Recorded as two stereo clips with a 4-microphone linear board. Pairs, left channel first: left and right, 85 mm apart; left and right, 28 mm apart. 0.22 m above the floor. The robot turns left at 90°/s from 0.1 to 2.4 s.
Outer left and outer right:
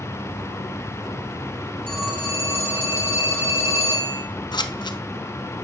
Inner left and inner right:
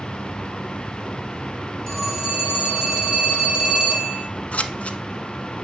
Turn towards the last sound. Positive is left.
turn(degrees=60)  # may be behind; listen again after turning